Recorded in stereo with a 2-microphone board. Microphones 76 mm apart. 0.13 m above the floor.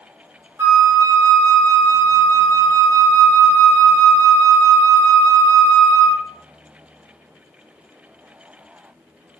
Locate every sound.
0.6 s a flute: 40° right (ahead or behind), 1.2 m